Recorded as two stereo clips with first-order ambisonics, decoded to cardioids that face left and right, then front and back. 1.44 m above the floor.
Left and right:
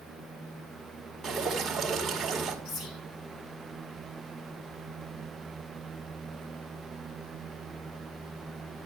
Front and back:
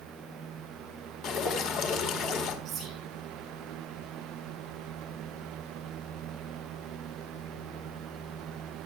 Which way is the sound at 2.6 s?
120° left.